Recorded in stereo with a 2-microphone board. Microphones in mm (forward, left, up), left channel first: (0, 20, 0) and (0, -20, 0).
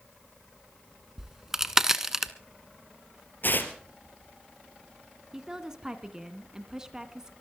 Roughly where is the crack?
Centre.